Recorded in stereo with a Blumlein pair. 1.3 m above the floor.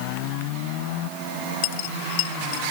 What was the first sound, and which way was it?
A dropped coin, 50° left.